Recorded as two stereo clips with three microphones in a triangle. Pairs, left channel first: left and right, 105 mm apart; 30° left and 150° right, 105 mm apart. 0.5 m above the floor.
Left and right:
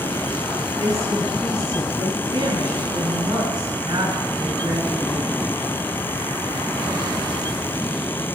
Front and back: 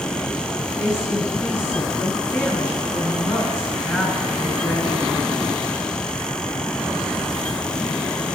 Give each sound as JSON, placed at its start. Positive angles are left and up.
{"t": 0.8, "sound": "a woman speaking", "azimuth_deg": -35, "distance_m": 4.0}